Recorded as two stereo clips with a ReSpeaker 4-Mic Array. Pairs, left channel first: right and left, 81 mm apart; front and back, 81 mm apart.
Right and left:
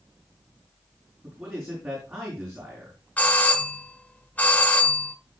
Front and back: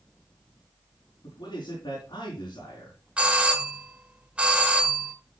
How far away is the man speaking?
About 4.5 m.